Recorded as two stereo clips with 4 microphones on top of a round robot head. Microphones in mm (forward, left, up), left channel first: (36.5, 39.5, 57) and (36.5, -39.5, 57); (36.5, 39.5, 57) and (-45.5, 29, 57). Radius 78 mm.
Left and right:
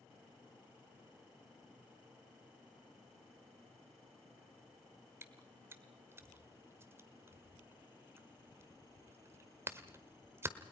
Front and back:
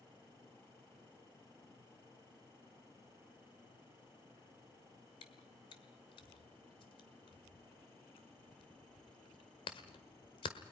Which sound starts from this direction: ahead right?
Chewing, at 5.2 s.